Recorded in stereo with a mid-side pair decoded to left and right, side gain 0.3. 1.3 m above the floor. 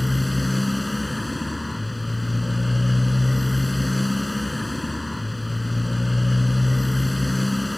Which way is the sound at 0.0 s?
10° left.